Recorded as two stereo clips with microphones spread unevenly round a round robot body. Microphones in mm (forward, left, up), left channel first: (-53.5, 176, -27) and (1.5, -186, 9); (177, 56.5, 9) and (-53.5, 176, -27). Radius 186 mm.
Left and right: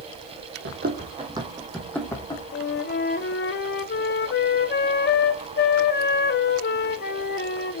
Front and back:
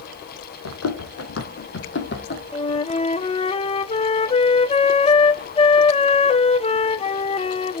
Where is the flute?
45° left, 0.6 m.